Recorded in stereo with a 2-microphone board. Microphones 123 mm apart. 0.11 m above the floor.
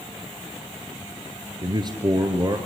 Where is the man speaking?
35° right (ahead or behind), 1.8 m.